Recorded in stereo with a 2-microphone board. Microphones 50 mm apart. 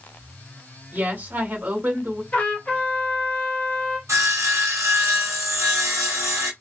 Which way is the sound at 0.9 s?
40° right (ahead or behind).